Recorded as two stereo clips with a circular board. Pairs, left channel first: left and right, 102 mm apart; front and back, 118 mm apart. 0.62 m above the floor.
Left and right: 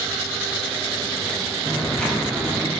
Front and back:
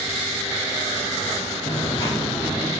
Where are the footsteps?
20° left, 0.8 m; by 2.7 s 125° right, 0.6 m.